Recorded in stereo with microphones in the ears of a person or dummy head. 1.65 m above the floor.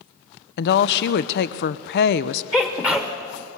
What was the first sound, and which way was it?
A woman speaking, 60° left (ahead or behind).